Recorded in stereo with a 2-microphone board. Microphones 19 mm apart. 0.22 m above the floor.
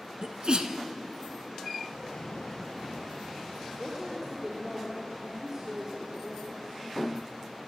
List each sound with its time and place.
0.2 s a sneeze: 55° right (ahead or behind), 2 m
1.9 s an explosion: 60° left (ahead or behind), 5 m
3.8 s a woman speaking: 30° right (ahead or behind), 4.5 m